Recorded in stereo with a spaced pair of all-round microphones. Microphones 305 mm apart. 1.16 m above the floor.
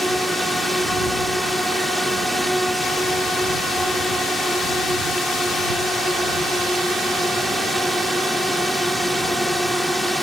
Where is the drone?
Centre (ahead or behind).